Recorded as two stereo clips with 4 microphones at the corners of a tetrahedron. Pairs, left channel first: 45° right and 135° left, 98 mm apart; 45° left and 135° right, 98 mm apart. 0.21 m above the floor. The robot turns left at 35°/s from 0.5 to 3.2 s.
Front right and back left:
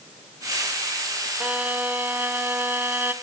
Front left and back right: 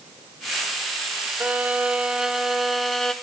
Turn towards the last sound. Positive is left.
turn(degrees=115)